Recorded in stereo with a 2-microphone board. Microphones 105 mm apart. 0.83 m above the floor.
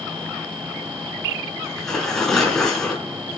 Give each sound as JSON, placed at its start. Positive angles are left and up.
{"t": 1.6, "sound": "tearing paper", "side_deg": 5, "distance_m": 3.5}